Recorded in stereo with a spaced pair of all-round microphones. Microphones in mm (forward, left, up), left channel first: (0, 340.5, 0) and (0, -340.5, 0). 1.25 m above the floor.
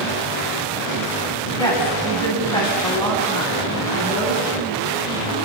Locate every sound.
1.6 s a woman speaking: 5° left (ahead or behind), 9 m